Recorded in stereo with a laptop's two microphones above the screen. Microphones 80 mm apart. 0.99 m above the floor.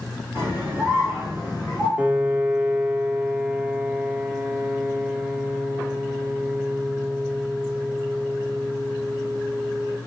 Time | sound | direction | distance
0.3 | a scream | 20° right (ahead or behind) | 2.5 m
2.0 | a piano | 15° right (ahead or behind) | 0.6 m